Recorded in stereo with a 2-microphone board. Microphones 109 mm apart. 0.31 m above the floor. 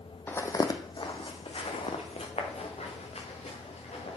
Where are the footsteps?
15° left (ahead or behind), 0.7 m; by 4.2 s 80° left, 2.5 m.